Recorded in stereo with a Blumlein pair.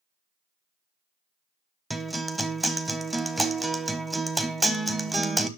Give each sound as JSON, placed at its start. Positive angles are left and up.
{"t": 1.9, "sound": "a guitar", "azimuth_deg": -5, "distance_m": 0.9}